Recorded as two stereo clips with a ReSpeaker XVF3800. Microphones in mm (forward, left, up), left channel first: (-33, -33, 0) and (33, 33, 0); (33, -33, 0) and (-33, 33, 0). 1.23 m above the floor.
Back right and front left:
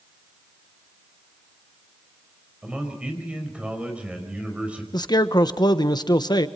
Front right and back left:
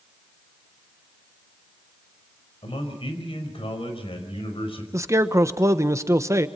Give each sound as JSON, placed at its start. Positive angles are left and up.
{"t": 2.6, "sound": "a man speaking", "azimuth_deg": -30, "distance_m": 5.0}
{"t": 4.9, "sound": "a man speaking", "azimuth_deg": -170, "distance_m": 1.2}